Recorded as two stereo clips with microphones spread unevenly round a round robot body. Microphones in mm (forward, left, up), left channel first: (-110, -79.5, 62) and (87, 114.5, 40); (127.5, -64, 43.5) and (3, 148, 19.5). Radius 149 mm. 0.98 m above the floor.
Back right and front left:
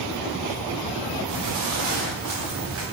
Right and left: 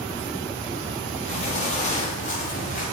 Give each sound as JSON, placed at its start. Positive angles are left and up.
{"t": 1.3, "sound": "footsteps", "azimuth_deg": 5, "distance_m": 6.0}